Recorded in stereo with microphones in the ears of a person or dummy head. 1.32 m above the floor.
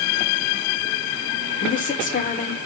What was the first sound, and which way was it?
A woman speaking, 35° left (ahead or behind).